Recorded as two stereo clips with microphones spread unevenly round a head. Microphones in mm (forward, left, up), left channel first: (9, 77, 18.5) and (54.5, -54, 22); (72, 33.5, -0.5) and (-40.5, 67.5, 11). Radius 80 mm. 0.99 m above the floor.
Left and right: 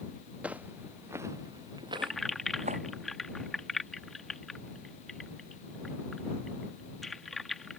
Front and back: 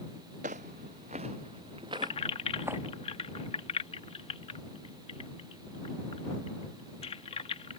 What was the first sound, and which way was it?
Footsteps, 155° right.